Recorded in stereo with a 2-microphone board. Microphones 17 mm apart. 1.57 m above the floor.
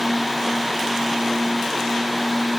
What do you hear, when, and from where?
Only background noise.